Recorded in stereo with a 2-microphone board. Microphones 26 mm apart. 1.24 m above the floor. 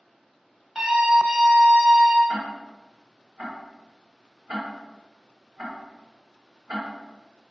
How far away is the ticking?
About 1.4 m.